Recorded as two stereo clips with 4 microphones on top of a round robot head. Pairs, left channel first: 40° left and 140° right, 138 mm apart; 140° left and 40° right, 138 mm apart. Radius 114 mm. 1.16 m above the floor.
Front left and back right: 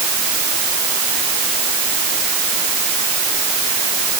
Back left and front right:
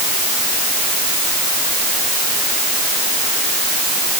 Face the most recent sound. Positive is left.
No sound to turn to.